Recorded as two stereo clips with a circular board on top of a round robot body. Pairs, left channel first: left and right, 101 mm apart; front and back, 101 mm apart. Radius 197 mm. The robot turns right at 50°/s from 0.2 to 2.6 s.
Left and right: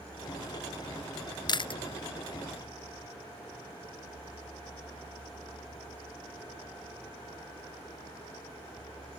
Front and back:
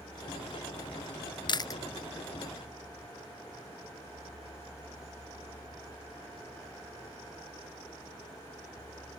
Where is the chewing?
45° left; by 1.8 s 60° left.